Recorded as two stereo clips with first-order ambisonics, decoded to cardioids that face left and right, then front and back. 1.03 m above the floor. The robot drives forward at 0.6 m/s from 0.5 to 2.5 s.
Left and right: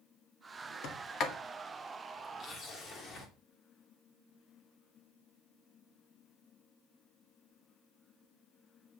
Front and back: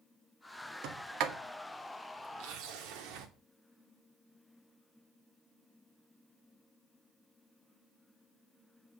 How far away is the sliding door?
About 1.7 m.